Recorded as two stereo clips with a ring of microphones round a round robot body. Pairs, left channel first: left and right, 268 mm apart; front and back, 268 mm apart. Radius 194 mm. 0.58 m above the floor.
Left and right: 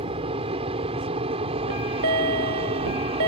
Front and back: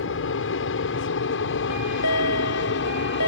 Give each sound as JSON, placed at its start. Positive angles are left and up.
{"t": 0.0, "sound": "an aircraft", "azimuth_deg": -25}
{"t": 1.7, "sound": "a chime", "azimuth_deg": -55}